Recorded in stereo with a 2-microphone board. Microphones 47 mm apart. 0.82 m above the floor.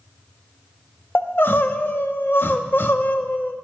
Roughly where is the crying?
Left.